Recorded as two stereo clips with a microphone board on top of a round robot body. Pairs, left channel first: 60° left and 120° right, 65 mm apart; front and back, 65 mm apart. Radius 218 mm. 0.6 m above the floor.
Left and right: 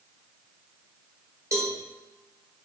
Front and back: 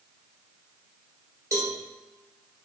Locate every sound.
1.5 s a cowbell: 155° right, 1.7 m